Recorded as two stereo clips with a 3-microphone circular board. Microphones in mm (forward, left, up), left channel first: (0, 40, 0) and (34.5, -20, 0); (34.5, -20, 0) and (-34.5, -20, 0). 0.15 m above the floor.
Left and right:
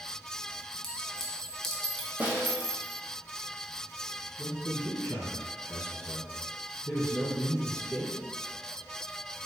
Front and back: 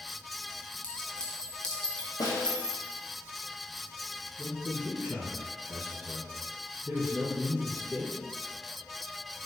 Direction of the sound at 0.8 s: 50° left.